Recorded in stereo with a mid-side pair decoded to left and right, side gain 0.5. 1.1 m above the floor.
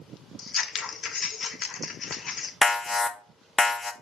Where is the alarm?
25° left, 1.0 m.